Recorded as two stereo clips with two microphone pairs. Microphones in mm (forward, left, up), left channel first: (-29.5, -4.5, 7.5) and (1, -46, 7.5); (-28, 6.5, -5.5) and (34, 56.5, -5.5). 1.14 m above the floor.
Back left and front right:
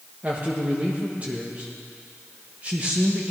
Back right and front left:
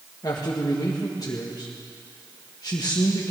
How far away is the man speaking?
About 1.4 m.